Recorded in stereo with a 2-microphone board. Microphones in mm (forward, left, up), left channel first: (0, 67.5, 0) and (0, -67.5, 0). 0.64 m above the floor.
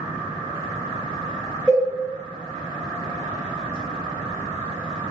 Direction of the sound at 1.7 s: 10° right (ahead or behind).